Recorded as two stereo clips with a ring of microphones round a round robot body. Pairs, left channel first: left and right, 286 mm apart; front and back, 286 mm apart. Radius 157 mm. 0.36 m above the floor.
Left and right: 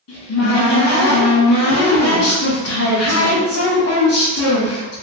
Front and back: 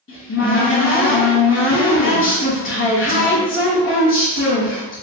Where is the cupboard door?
50° left, 1.0 m.